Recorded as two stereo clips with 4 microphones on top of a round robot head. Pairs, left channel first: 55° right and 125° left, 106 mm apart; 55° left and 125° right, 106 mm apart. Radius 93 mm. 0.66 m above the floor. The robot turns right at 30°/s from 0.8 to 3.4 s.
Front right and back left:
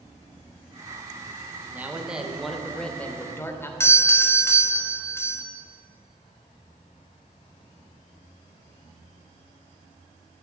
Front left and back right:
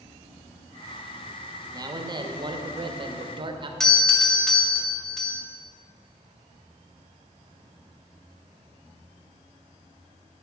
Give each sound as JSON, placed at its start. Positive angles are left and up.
{"t": 1.7, "sound": "a man speaking", "azimuth_deg": -165, "distance_m": 1.0}
{"t": 3.8, "sound": "a doorbell", "azimuth_deg": -25, "distance_m": 1.2}